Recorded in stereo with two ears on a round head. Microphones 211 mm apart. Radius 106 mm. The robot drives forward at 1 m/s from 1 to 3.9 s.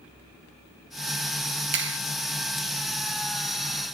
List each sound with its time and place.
1.7 s a clap: 50° right (ahead or behind)